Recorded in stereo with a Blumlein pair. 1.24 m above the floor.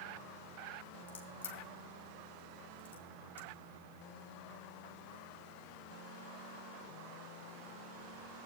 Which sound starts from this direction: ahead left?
A crack, at 1.1 s.